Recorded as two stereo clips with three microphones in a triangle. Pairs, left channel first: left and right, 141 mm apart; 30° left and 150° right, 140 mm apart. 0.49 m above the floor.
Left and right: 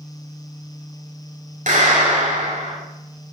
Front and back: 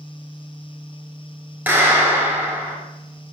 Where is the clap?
75° right, 8 m.